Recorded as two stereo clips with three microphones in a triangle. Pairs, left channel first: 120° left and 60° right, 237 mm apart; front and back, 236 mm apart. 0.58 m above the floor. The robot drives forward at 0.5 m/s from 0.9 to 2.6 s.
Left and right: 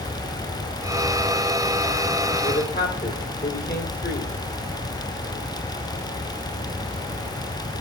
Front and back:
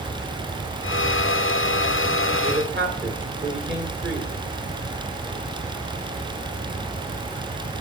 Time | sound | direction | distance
2.4 | a man speaking | 155° left | 2 m